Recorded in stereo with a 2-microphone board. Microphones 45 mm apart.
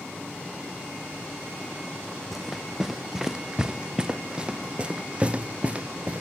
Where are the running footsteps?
Centre (ahead or behind); by 6.2 s 30° right (ahead or behind).